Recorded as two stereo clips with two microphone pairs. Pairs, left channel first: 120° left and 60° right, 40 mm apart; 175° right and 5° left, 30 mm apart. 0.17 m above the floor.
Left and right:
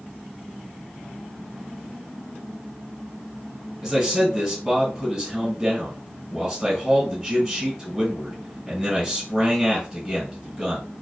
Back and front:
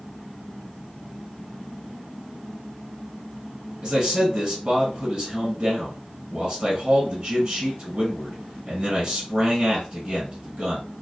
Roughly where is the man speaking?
Ahead left.